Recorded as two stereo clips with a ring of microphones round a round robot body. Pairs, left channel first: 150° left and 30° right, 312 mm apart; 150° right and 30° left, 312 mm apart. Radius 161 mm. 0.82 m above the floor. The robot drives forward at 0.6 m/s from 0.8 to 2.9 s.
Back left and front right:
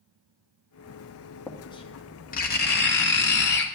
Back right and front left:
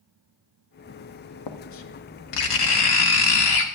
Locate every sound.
1.5 s writing: 125° right, 0.9 m; by 3.6 s 155° right, 1.6 m